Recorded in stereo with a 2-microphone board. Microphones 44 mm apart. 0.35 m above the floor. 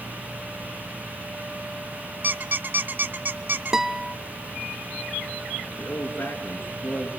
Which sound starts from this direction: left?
A man speaking, at 5.8 s.